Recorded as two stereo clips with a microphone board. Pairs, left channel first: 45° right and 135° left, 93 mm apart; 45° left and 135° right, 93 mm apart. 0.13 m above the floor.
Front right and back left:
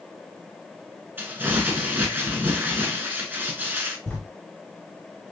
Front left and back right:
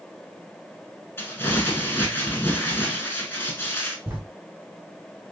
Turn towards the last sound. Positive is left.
turn(degrees=-105)